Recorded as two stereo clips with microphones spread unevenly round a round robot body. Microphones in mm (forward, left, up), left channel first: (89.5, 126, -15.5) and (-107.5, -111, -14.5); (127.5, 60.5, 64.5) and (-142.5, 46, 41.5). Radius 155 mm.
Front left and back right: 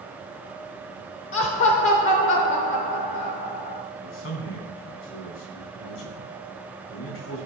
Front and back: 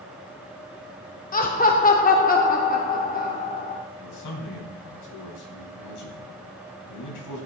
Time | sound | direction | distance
1.3 | laughter | 50° left | 1.0 m
4.0 | a man speaking | straight ahead | 4 m